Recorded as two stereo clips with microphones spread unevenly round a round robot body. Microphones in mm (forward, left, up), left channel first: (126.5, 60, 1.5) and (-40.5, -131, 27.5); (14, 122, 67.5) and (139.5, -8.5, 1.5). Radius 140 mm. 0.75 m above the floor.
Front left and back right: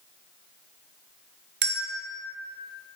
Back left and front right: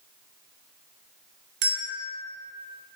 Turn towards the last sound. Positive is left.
turn(degrees=-80)